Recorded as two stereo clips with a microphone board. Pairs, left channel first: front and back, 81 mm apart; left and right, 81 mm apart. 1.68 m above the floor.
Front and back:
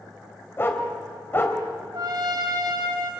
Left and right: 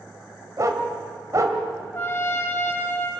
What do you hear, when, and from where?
0.6 s a dog barking: 55° right, 2.5 m
1.9 s a trumpet: 155° left, 4.5 m